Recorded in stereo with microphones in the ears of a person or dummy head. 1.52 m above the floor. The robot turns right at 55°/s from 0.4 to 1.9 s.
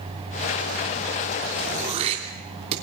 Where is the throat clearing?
50° right (ahead or behind), 3 m; by 2.7 s 35° right (ahead or behind), 3 m.